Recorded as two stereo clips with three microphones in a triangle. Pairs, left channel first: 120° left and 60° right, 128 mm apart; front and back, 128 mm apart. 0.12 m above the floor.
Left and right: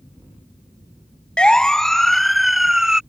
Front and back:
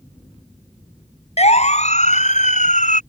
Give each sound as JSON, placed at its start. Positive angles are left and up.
{"t": 1.4, "sound": "a siren", "azimuth_deg": 35}